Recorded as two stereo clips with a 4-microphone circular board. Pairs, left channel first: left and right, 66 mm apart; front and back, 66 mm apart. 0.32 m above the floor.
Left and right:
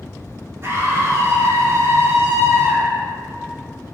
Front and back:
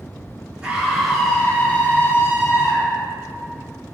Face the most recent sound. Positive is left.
turn(degrees=-40)